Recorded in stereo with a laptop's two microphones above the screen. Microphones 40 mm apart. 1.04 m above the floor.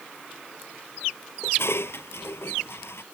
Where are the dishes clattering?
75° left (ahead or behind).